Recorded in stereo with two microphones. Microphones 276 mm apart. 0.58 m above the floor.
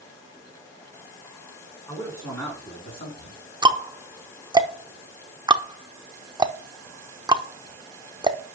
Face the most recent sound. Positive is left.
turn(degrees=-15)  # may be behind; listen again after turning